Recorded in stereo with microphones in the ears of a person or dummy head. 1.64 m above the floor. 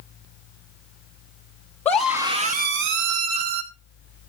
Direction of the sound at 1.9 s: 10° left (ahead or behind).